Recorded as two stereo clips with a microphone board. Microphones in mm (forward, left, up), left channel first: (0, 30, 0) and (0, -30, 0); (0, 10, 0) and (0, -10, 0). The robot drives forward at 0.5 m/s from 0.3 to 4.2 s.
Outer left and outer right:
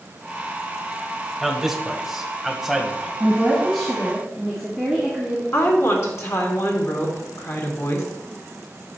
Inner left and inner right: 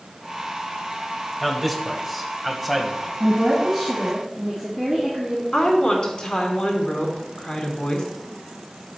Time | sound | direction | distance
1.4 | a man speaking | 5° right (ahead or behind) | 1.4 m
3.2 | a woman speaking | 5° left (ahead or behind) | 1.7 m
5.5 | a woman speaking | 50° left (ahead or behind) | 2.5 m